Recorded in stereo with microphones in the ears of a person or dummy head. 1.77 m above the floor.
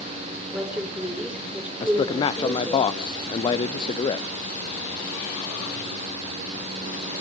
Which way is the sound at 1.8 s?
30° left (ahead or behind).